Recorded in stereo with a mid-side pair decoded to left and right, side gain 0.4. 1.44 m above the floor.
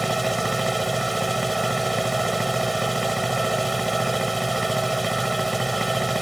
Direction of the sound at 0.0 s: 10° right.